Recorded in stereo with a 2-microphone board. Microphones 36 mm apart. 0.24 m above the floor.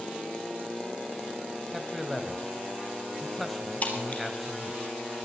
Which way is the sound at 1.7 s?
Centre (ahead or behind).